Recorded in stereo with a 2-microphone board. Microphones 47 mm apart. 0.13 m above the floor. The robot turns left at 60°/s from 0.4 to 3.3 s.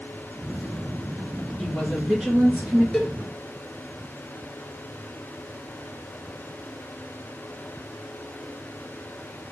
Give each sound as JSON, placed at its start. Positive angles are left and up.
{"t": 1.6, "sound": "a woman speaking", "azimuth_deg": 5, "distance_m": 2.0}
{"t": 2.9, "sound": "a cowbell", "side_deg": 10, "distance_m": 0.8}